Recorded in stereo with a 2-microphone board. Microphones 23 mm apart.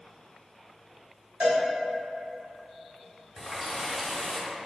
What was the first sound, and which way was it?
A cowbell, 65° right (ahead or behind).